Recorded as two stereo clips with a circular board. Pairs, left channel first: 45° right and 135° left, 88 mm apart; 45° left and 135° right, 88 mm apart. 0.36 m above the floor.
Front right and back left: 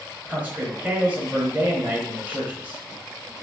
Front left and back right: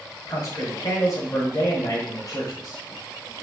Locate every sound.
0.3 s a man speaking: 70° left, 1.4 m